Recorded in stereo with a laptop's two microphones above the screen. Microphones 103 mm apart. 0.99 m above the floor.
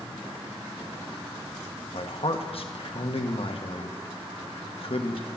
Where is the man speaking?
65° left (ahead or behind), 1.2 m.